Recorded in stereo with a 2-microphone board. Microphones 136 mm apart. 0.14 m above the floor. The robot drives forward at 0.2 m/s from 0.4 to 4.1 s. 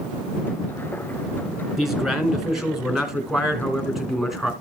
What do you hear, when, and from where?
1.8 s a man speaking: centre (ahead or behind), 1.9 m